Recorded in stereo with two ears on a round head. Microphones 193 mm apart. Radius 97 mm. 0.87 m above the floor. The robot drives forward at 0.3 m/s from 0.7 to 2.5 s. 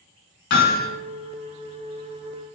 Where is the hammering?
50° left (ahead or behind), 2.5 m.